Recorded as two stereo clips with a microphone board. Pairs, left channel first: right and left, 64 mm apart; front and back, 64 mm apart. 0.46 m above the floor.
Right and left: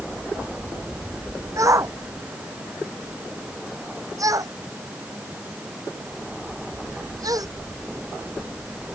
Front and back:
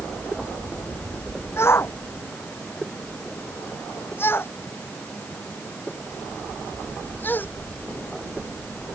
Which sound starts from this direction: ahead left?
A shout, at 1.6 s.